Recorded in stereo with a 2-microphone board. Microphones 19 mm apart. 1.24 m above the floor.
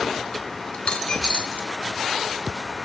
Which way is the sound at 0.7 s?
70° left (ahead or behind).